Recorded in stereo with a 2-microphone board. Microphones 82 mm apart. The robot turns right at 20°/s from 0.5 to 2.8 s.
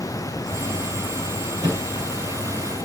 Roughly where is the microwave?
Right.